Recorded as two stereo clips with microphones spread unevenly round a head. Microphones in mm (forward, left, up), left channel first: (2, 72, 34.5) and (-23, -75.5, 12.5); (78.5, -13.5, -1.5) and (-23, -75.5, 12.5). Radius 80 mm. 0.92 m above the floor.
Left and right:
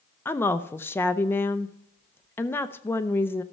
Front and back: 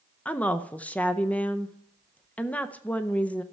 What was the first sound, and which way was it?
A woman speaking, 10° left.